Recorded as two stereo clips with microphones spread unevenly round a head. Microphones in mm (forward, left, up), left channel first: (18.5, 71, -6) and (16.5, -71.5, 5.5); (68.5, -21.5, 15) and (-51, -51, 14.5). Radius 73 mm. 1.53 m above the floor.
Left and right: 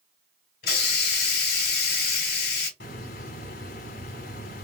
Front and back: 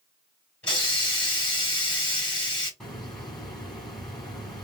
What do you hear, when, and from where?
0.6 s a hiss: 90° left, 2.5 m
2.8 s a hiss: 100° left, 2.5 m